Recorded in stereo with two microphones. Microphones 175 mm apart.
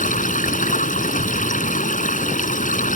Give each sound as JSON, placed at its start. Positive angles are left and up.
{"t": 0.0, "sound": "running water", "side_deg": 50}